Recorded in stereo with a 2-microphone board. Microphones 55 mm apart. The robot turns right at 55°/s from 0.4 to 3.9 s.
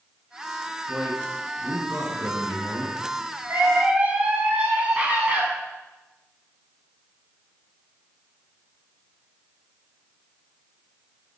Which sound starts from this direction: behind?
A man speaking, at 0.9 s.